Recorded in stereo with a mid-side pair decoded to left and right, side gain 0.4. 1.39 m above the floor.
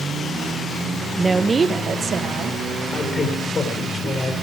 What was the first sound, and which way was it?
A woman speaking, 20° right.